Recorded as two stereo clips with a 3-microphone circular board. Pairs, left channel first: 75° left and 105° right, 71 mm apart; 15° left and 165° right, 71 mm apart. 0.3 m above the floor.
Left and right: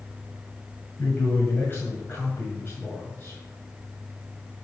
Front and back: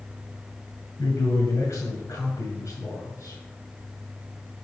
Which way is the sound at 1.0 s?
30° left.